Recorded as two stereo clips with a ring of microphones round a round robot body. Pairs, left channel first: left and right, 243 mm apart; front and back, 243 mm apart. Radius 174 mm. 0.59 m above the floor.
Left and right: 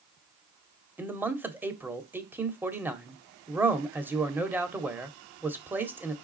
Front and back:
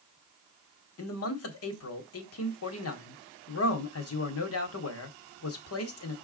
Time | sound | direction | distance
1.0 | a man speaking | 10° right | 1.8 m